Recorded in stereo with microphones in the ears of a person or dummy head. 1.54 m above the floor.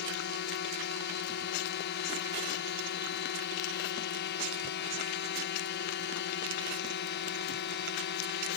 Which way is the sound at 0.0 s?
50° left (ahead or behind).